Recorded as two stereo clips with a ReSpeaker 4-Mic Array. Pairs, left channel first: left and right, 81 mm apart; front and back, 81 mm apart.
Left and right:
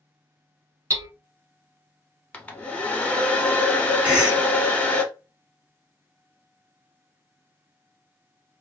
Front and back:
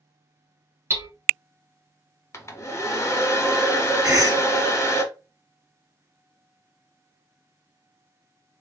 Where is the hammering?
130° right, 0.7 m.